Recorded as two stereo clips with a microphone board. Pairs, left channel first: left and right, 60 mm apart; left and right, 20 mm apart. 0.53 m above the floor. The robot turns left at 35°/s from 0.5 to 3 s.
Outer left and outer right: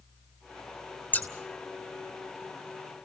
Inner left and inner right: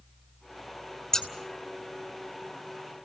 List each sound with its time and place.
1.1 s scissors: 30° left (ahead or behind), 2.5 m; by 1.3 s 25° left (ahead or behind), 2.5 m